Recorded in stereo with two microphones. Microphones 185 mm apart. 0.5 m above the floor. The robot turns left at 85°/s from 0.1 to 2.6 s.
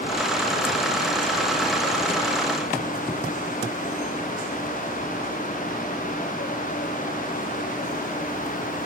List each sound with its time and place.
Only background noise.